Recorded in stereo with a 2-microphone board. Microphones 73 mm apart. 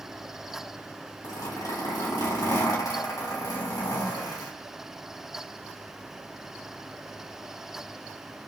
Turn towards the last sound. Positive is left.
turn(degrees=65)  # may be behind; listen again after turning